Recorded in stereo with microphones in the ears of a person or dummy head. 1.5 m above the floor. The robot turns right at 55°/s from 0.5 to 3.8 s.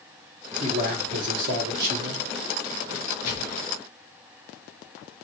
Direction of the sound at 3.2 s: 50° left (ahead or behind).